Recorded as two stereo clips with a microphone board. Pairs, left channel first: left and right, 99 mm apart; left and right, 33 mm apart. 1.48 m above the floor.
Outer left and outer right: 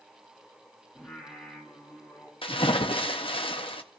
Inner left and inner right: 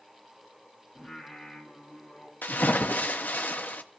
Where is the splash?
70° left (ahead or behind), 0.9 m.